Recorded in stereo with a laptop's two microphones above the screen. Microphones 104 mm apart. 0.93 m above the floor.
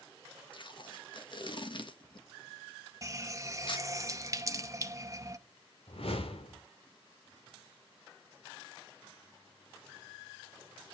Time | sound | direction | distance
0.5 | tape being pulled | 50° left (ahead or behind) | 1.4 m
3.0 | a running tap | 30° right (ahead or behind) | 0.6 m
5.9 | a whoosh | 65° left (ahead or behind) | 1.7 m